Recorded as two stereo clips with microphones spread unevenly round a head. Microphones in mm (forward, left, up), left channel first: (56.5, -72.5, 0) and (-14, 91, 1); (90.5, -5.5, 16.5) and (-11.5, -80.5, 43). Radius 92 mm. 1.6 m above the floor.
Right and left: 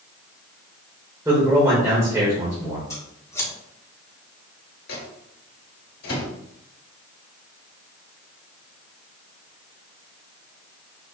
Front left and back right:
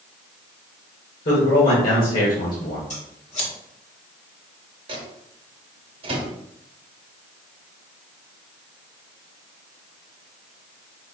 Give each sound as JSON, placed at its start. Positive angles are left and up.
{"t": 1.2, "sound": "a man speaking", "azimuth_deg": 40, "distance_m": 1.5}
{"t": 2.9, "sound": "scissors", "azimuth_deg": 5, "distance_m": 1.6}
{"t": 4.9, "sound": "a microwave", "azimuth_deg": -105, "distance_m": 1.1}